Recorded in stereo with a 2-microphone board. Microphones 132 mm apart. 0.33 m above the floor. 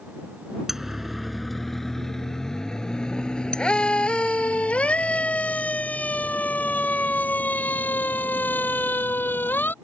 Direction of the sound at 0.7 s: 5° right (ahead or behind).